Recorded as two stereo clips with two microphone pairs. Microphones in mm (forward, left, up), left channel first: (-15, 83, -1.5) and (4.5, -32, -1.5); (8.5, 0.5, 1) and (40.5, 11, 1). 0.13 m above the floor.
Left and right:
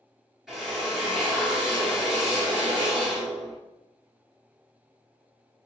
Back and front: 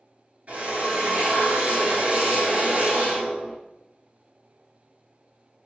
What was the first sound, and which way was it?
A drill, 5° left.